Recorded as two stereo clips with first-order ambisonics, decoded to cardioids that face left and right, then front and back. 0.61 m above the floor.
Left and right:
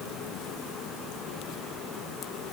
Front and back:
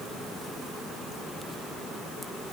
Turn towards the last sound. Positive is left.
No sound to turn to.